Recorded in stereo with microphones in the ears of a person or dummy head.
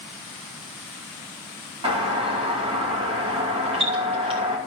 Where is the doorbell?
25° right (ahead or behind), 2.5 m.